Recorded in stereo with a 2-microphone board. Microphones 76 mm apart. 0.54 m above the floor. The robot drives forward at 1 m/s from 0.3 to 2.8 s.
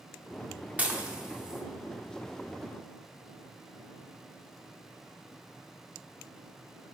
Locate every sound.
0.8 s dishes clattering: 20° right (ahead or behind), 0.6 m; by 1.6 s 10° right (ahead or behind), 1.3 m